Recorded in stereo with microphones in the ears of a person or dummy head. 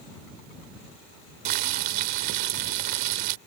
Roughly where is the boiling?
Right.